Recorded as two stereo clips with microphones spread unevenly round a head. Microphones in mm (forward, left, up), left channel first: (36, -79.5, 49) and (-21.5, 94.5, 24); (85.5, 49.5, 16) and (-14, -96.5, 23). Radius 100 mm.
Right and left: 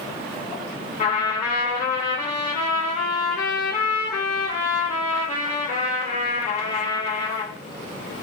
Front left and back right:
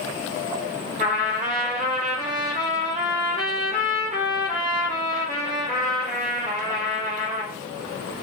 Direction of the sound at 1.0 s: 105° right.